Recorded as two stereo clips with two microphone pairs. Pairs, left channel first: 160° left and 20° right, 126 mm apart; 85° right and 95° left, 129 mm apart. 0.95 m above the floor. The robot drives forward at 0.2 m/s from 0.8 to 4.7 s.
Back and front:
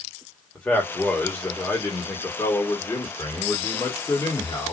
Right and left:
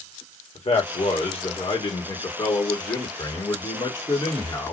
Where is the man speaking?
125° right, 1.4 m; by 4.7 s 145° right, 1.9 m.